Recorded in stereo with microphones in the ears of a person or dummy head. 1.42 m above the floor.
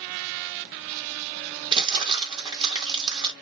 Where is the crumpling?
20° right (ahead or behind), 1.4 m.